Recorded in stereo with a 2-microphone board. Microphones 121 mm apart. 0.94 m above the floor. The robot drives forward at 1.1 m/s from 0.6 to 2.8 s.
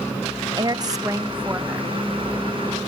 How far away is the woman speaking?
About 0.6 m.